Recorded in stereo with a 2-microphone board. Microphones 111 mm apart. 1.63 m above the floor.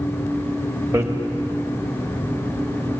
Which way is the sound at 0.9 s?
25° right (ahead or behind).